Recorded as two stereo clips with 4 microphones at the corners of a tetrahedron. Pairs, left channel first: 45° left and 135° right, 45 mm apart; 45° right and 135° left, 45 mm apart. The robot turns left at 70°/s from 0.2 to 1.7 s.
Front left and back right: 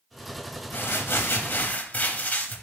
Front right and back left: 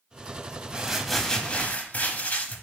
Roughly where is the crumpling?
Left.